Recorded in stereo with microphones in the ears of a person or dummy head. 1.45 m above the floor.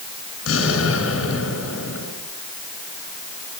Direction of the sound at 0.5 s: 85° left.